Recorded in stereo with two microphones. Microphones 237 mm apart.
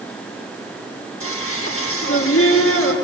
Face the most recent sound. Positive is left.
turn(degrees=65)  # may be behind; listen again after turning